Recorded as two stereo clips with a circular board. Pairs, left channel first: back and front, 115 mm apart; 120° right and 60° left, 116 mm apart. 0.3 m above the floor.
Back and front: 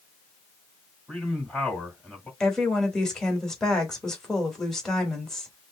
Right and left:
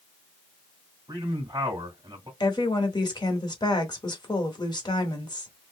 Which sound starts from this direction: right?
A woman speaking, at 2.4 s.